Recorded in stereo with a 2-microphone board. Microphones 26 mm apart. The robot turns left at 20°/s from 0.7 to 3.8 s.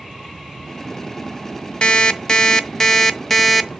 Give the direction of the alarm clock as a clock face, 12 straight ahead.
11 o'clock.